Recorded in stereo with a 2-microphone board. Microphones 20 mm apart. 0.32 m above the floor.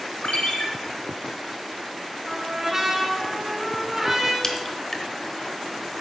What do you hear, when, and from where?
0.2 s a ringtone: 70° left (ahead or behind), 1.3 m
2.3 s a trumpet: 15° right (ahead or behind), 2 m
4.4 s a crack: 25° left (ahead or behind), 1.0 m